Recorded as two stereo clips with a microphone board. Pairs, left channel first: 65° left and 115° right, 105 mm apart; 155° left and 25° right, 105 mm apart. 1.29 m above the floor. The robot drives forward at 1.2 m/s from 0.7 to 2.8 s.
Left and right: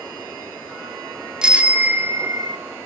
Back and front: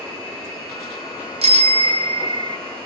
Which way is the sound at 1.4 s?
30° right.